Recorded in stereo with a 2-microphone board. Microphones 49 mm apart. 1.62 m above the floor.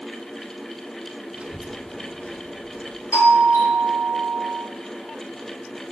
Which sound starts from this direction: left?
A doorbell, at 3.1 s.